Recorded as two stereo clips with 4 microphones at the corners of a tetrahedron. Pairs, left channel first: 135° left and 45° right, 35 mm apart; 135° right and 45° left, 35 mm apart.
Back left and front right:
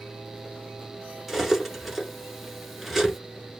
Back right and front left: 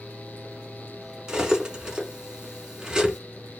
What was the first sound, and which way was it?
Cutlery clinking, 40° left.